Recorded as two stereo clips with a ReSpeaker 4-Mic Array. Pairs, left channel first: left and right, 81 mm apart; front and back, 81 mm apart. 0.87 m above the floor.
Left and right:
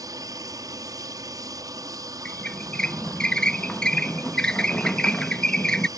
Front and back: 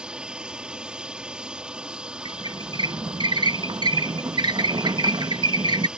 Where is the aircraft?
105° right.